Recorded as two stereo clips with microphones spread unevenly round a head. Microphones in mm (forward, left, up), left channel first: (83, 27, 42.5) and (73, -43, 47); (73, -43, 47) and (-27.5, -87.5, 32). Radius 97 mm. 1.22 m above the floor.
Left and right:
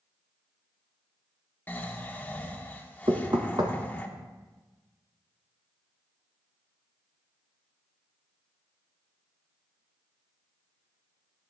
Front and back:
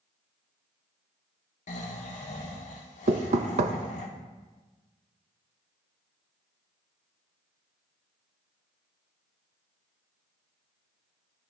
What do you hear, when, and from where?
1.7 s snoring: 20° left, 1.5 m
3.1 s knocking: 150° right, 0.5 m